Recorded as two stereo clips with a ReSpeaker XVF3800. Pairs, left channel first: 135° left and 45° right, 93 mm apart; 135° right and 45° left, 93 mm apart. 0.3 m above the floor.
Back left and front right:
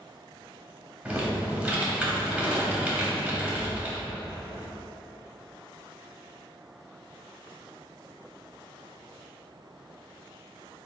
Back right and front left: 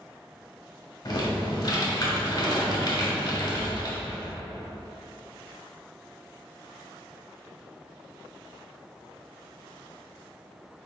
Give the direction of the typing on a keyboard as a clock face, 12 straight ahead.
4 o'clock.